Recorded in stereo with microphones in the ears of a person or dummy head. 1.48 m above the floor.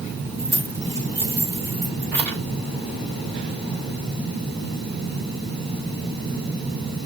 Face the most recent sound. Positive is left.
turn(degrees=-20)  # may be behind; listen again after turning